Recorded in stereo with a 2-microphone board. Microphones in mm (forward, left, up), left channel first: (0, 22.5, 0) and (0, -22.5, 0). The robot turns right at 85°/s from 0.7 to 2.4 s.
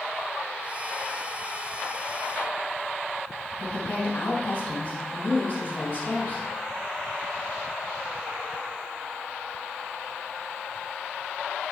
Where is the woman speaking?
30° left (ahead or behind), 2.5 m.